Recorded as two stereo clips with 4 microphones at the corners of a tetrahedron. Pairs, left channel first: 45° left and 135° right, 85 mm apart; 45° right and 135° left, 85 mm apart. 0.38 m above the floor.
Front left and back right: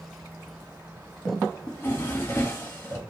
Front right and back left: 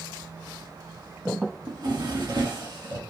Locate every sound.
1.7 s a drawer: 105° left, 1.0 m